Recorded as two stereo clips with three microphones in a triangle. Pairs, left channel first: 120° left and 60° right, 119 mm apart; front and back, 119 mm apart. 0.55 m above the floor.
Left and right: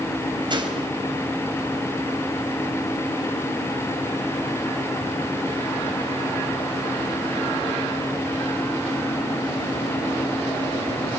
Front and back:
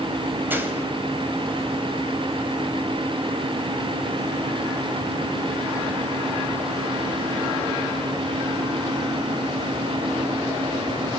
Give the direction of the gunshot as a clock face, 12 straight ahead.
4 o'clock.